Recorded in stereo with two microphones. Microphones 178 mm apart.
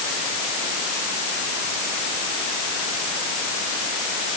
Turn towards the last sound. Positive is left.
No sound to turn to.